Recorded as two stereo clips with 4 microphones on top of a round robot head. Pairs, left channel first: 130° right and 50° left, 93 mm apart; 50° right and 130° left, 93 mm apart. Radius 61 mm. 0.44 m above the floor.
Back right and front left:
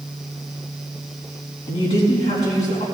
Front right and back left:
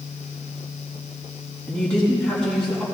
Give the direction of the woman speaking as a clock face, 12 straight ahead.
4 o'clock.